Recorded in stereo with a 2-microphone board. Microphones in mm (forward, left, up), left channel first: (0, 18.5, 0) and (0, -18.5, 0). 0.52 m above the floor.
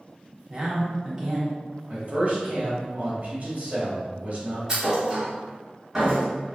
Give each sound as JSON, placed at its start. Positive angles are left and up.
{"t": 0.5, "sound": "a man speaking", "side_deg": -20, "distance_m": 0.8}
{"t": 1.9, "sound": "a man speaking", "side_deg": -50, "distance_m": 1.0}
{"t": 4.7, "sound": "a thud", "side_deg": -20, "distance_m": 1.4}